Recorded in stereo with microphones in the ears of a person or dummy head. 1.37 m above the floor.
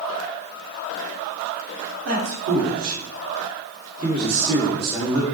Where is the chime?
I don't hear a chime.